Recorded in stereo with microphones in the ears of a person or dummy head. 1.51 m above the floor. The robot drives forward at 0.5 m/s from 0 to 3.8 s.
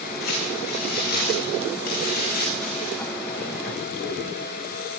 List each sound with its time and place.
0.2 s crumpling: 65° left (ahead or behind), 9.5 m; by 3.0 s 55° left (ahead or behind), 10.5 m